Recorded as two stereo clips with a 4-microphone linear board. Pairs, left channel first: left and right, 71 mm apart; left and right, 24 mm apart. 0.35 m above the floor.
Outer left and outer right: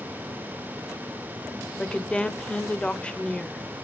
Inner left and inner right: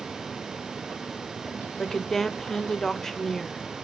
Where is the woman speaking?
15° left (ahead or behind), 0.8 m.